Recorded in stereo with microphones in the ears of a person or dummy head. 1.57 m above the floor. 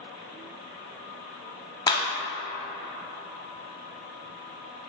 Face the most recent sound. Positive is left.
turn(degrees=20)  # may be behind; listen again after turning